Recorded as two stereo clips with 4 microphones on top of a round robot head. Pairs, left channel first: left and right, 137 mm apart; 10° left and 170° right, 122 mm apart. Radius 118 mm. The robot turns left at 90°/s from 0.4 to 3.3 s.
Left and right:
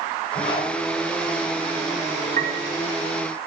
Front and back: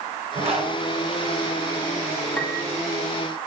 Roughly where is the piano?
Ahead right.